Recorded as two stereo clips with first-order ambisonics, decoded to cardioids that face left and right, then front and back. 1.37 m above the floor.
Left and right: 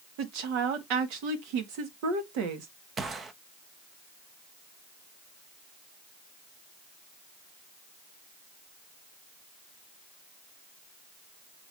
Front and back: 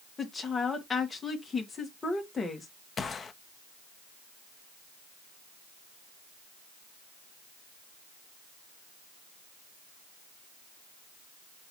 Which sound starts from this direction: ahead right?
A gunshot, at 3.0 s.